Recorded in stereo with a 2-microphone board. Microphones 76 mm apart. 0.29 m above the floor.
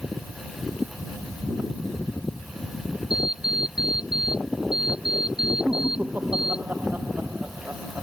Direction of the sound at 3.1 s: 10° right (ahead or behind).